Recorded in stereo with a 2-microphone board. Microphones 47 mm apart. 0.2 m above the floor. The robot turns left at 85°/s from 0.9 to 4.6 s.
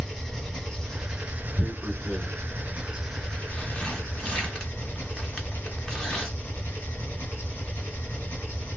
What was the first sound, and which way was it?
An engine running, 5° left.